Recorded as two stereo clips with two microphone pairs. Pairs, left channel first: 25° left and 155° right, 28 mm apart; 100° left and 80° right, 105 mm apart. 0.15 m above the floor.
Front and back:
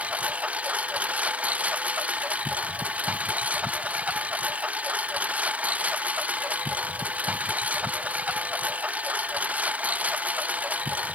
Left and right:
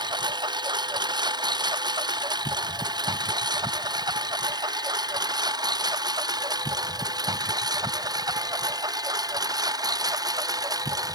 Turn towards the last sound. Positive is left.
turn(degrees=-135)